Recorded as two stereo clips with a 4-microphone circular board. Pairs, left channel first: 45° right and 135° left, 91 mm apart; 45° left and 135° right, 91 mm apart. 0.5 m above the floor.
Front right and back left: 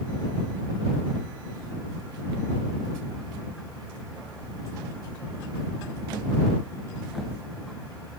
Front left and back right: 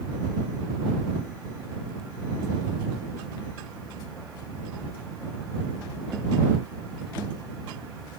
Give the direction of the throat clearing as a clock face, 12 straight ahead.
No throat clearing in this recording.